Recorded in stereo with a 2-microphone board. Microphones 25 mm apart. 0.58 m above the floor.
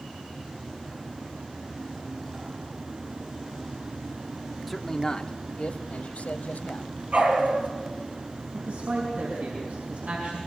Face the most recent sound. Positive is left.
turn(degrees=-80)